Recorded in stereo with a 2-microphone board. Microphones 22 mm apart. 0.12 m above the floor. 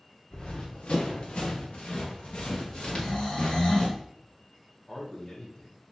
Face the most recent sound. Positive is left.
turn(degrees=35)  # may be behind; listen again after turning